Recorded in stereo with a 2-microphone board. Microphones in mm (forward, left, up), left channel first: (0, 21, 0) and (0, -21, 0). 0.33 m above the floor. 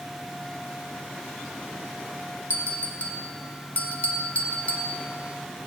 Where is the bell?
40° left (ahead or behind), 1.0 m.